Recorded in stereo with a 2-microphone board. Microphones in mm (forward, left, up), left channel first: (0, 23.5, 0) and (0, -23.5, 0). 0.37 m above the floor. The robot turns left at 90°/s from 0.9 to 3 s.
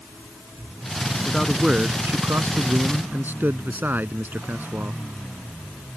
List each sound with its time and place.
1.2 s a man speaking: 20° left; by 5.0 s 135° right